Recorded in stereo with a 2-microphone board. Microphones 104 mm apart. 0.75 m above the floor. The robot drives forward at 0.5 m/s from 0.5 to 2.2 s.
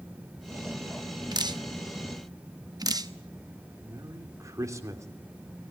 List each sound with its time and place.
1.3 s dripping: 40° right (ahead or behind), 0.9 m
3.8 s a man speaking: 30° right (ahead or behind), 2.5 m